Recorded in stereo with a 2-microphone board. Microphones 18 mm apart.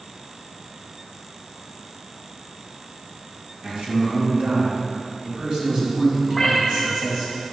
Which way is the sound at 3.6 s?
75° right (ahead or behind).